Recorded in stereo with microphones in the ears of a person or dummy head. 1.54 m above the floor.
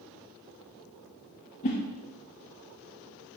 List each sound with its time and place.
1.6 s a whoosh: 30° left (ahead or behind), 1.0 m